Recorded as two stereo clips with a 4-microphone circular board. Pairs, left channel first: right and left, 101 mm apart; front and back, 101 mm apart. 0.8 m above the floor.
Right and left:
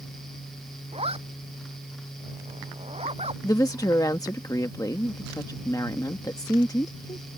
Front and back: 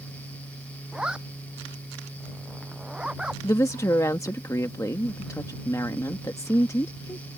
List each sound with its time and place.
0.9 s a zipper: 100° left
3.4 s a woman speaking: 50° right